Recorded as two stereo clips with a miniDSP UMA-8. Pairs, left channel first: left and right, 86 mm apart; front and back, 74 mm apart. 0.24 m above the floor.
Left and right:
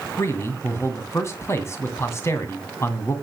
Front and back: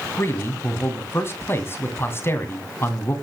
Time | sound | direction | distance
0.2 | a man speaking | 45° left | 2 m